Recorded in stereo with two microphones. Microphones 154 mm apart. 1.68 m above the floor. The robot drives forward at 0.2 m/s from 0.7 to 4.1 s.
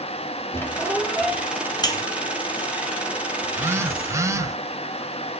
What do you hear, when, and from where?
0.5 s a squeak: 15° left (ahead or behind), 1.4 m
1.8 s a buzzer: 25° left (ahead or behind), 0.9 m
3.4 s a phone buzzing: 15° right (ahead or behind), 0.6 m; by 4.6 s 20° right (ahead or behind), 0.5 m